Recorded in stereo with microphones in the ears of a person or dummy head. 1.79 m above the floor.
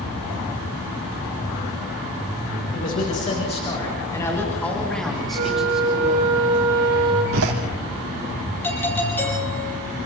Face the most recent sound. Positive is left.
turn(degrees=10)  # may be behind; listen again after turning